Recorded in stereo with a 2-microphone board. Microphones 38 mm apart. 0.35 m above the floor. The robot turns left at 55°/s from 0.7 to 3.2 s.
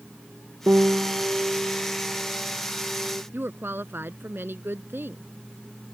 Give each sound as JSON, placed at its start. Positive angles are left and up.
{"t": 0.7, "sound": "a piano", "azimuth_deg": -75}
{"t": 3.3, "sound": "a woman speaking", "side_deg": -65}